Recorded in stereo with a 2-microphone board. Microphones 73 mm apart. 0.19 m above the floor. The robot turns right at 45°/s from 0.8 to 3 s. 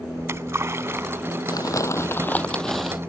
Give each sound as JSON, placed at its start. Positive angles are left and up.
{"t": 0.2, "sound": "a splash", "side_deg": -40}
{"t": 1.5, "sound": "crumpling", "azimuth_deg": 120}